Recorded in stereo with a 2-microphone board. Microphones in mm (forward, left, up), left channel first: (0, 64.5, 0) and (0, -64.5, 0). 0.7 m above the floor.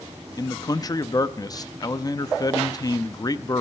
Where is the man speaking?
30° left (ahead or behind), 0.5 m.